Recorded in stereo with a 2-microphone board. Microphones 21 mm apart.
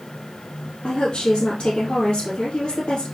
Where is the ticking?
No ticking in this recording.